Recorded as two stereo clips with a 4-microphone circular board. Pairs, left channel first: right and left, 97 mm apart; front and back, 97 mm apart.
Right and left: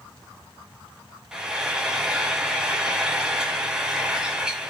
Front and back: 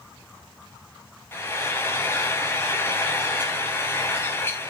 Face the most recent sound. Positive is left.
turn(degrees=20)